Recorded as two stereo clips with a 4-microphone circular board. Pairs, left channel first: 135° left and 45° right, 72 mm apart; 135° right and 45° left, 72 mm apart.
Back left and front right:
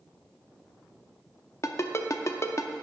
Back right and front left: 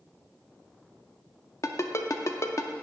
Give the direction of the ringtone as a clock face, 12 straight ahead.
6 o'clock.